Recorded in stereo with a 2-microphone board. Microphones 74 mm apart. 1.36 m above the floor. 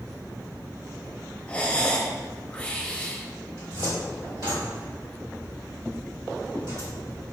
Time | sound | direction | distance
1.5 | breathing | 20° left (ahead or behind) | 0.7 m
3.6 | a cupboard door | 65° right (ahead or behind) | 1.9 m